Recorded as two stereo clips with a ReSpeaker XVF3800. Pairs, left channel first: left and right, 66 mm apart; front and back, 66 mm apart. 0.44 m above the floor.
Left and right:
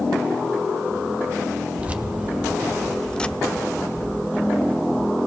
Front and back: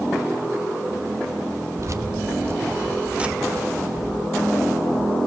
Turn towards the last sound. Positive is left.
turn(degrees=55)